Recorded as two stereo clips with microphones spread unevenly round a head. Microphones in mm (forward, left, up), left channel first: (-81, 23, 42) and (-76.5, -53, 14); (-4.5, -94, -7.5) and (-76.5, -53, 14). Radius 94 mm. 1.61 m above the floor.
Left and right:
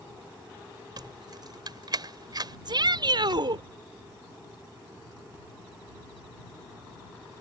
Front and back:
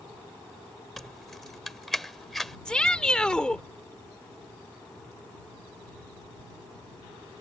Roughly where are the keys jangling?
Behind right.